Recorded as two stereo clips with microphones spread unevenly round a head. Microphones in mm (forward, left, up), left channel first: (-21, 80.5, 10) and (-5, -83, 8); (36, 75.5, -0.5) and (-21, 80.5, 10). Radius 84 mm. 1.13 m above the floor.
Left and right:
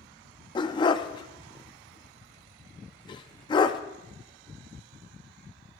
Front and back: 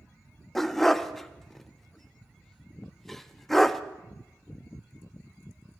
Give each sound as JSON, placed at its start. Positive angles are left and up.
{"t": 0.6, "sound": "a dog barking", "azimuth_deg": 95, "distance_m": 0.5}